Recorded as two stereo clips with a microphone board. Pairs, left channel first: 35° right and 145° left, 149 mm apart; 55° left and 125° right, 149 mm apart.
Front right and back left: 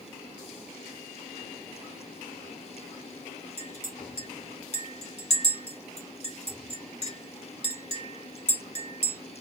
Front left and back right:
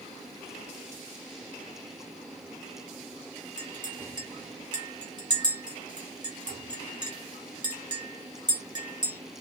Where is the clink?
70° right, 1.5 m.